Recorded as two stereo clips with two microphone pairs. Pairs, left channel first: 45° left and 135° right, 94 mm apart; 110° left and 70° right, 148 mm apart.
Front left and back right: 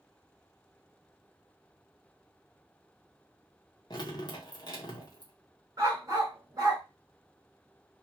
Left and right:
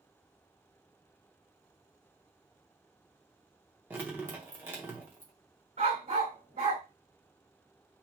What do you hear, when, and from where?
3.9 s dripping: 10° left, 1.1 m
5.8 s a dog barking: 90° right, 2.0 m